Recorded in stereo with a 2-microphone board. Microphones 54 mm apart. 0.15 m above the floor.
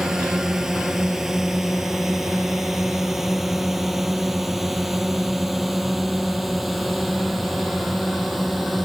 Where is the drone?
10° right (ahead or behind); by 8.8 s centre (ahead or behind).